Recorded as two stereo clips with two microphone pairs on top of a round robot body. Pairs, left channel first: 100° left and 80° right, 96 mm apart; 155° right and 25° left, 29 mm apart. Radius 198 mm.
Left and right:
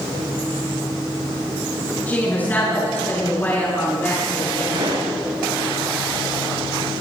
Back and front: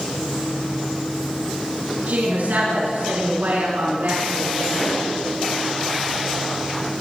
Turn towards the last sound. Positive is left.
turn(degrees=-80)